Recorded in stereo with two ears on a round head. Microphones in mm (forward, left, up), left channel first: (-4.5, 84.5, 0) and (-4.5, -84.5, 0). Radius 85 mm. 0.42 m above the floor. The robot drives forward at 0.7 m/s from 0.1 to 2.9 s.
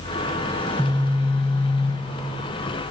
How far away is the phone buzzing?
About 1.7 m.